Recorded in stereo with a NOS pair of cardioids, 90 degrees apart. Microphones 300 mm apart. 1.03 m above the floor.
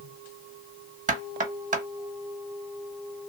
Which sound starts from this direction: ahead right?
Knocking, at 1.1 s.